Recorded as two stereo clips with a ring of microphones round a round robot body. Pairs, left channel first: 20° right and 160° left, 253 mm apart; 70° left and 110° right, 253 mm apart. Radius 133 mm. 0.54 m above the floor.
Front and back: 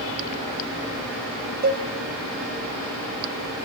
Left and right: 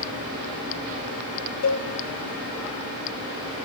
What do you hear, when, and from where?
1.6 s a cowbell: 105° left, 1.6 m